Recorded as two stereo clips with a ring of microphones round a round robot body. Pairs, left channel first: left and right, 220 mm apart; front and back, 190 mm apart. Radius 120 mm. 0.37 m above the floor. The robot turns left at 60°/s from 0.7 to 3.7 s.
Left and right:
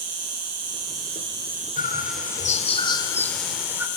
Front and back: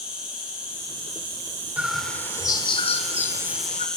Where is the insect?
95° right, 2.5 m; by 4.0 s 85° left, 2.5 m.